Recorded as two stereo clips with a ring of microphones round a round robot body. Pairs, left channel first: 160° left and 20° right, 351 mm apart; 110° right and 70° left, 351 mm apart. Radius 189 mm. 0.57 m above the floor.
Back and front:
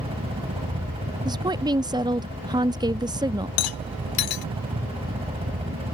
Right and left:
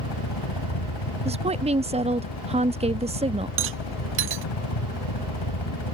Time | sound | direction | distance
0.0 | a helicopter | 95° right | ?
1.2 | a woman speaking | 35° left | ?
3.6 | a rattle | 125° left | ?